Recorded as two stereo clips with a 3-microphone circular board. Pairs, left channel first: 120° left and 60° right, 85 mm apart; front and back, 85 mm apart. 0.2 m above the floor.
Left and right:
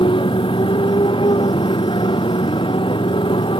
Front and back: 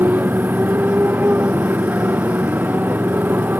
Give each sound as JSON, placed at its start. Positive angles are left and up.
{"t": 0.0, "sound": "a motorcycle", "azimuth_deg": 110}